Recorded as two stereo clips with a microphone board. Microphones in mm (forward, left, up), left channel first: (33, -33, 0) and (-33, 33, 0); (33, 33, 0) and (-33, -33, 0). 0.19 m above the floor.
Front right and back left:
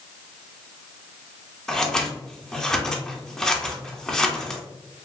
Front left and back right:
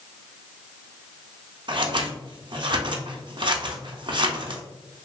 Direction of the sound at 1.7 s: 130° right.